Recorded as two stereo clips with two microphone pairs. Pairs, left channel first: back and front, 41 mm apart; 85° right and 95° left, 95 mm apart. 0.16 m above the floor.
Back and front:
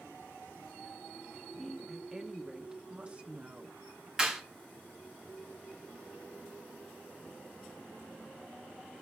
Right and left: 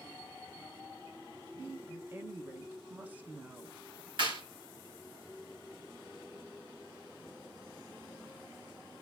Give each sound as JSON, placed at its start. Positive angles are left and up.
{"t": 1.6, "sound": "a woman speaking", "azimuth_deg": 110, "distance_m": 1.2}
{"t": 4.2, "sound": "a clap", "azimuth_deg": 75, "distance_m": 3.0}